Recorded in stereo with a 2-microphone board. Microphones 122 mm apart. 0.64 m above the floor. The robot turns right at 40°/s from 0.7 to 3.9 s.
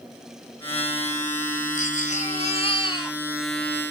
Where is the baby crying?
90° left, 1.4 m; by 3.2 s 150° left, 1.4 m.